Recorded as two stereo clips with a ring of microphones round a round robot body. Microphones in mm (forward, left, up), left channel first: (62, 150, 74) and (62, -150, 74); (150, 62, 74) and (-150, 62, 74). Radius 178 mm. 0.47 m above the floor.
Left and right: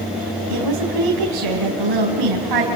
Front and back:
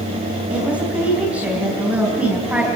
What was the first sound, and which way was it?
A woman speaking, 95° right.